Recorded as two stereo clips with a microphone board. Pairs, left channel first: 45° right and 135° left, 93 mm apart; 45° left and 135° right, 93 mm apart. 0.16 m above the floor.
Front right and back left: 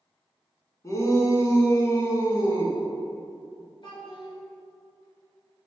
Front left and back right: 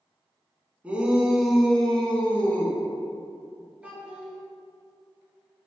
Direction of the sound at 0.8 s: 70° right.